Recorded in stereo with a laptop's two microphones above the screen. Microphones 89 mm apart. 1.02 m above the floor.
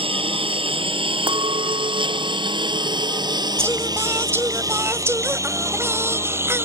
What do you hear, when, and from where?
0.0 s a lawn mower: 85° right; by 6.7 s 25° right (ahead or behind)
1.3 s a clink: 75° right (ahead or behind)
3.6 s singing: 25° right (ahead or behind)